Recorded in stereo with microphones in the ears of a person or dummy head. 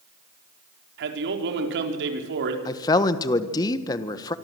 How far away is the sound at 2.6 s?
About 1.4 m.